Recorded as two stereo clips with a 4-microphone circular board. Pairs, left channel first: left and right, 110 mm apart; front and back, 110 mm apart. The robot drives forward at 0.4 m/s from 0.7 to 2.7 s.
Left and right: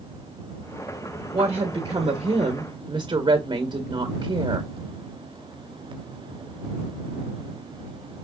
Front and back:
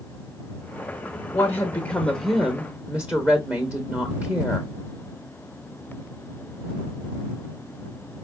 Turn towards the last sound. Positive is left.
turn(degrees=-110)